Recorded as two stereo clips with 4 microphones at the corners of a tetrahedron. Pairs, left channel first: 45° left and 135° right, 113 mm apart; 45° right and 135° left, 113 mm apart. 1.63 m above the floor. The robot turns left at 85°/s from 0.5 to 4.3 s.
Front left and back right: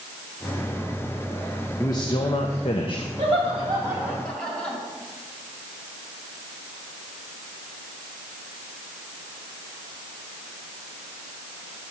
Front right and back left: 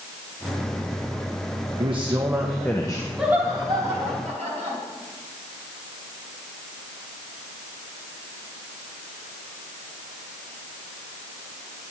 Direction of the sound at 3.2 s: 140° right.